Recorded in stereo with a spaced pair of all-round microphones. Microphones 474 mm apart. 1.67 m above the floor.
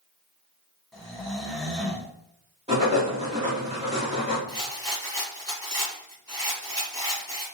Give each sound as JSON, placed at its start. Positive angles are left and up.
{"t": 0.9, "sound": "snoring", "side_deg": 0, "distance_m": 0.7}
{"t": 2.7, "sound": "writing", "side_deg": -15, "distance_m": 1.4}
{"t": 4.5, "sound": "a rattle", "side_deg": -35, "distance_m": 1.7}